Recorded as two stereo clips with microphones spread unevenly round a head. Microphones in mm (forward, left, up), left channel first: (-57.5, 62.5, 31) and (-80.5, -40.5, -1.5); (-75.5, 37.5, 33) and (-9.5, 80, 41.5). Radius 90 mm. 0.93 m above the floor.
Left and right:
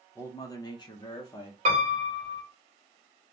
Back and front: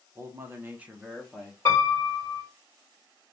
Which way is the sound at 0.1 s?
5° right.